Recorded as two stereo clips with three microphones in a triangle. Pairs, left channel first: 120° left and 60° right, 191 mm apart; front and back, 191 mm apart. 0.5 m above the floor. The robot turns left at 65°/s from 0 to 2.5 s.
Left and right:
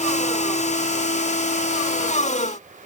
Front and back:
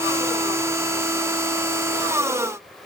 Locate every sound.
Only background noise.